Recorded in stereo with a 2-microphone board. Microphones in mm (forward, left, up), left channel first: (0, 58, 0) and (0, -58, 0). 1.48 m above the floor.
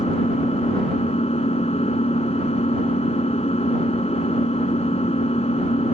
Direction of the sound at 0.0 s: 60° left (ahead or behind).